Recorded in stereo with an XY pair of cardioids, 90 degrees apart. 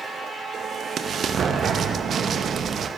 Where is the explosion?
60° right, 0.9 m.